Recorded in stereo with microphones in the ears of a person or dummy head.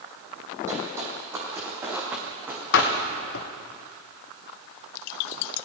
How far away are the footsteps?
About 3 m.